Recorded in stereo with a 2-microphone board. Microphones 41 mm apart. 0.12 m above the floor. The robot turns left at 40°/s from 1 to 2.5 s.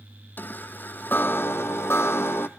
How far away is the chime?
About 1.2 m.